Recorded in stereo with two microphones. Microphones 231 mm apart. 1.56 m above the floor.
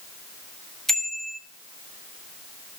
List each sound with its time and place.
0.9 s a bicycle bell: centre (ahead or behind), 2.5 m